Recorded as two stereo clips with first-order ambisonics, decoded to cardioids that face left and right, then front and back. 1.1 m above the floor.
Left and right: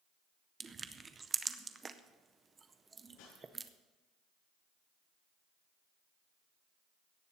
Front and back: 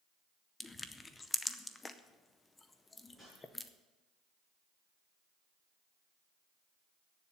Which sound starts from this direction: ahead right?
Crushing, at 0.6 s.